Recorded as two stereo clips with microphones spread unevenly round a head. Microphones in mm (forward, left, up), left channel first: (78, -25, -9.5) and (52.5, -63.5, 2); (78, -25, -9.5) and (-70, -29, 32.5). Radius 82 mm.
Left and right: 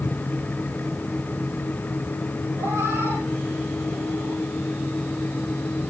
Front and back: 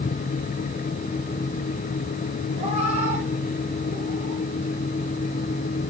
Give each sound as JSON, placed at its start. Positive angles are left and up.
{"t": 2.6, "sound": "a cat meowing", "azimuth_deg": -135, "distance_m": 6.5}